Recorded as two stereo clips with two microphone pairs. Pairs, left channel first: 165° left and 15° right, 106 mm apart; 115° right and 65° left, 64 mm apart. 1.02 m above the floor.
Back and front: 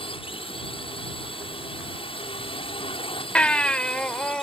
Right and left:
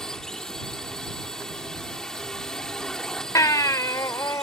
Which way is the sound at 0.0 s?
165° left.